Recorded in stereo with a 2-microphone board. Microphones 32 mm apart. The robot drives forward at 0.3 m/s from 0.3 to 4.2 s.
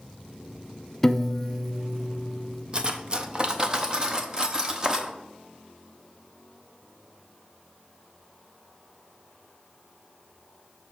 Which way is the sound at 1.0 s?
10° left (ahead or behind).